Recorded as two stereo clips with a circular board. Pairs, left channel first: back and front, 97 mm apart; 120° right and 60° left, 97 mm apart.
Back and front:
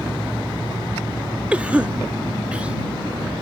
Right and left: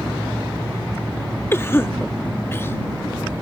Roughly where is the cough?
Right.